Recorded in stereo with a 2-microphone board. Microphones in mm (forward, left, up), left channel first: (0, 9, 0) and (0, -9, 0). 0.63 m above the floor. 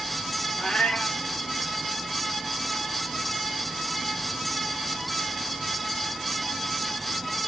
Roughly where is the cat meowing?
Left.